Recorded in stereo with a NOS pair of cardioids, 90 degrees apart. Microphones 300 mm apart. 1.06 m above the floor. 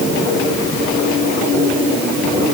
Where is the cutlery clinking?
No cutlery clinking in this recording.